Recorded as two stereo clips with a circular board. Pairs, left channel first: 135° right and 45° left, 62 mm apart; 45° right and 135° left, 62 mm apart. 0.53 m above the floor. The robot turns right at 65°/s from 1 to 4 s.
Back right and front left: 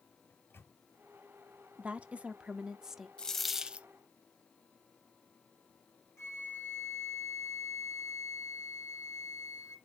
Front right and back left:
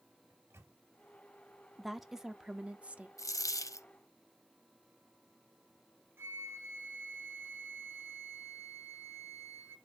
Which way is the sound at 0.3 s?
Straight behind.